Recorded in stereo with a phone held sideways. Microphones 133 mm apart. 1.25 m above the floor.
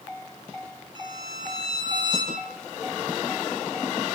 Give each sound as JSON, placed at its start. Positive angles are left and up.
{"t": 0.9, "sound": "a violin", "side_deg": -40, "distance_m": 6.0}